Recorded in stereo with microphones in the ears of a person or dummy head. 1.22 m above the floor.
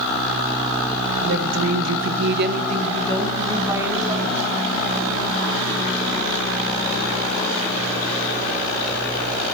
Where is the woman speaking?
60° right (ahead or behind), 0.6 m; by 4.4 s 5° right (ahead or behind), 1.5 m.